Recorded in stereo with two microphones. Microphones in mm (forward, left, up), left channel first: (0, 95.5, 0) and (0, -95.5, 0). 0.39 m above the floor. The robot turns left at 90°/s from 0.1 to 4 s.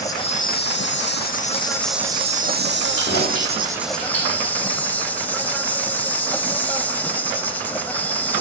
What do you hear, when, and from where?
0.0 s an insect: 160° left, 0.7 m; by 8.4 s 170° left, 0.7 m
3.0 s keys jangling: 40° left (ahead or behind), 8.5 m; by 4.5 s 45° left (ahead or behind), 8.5 m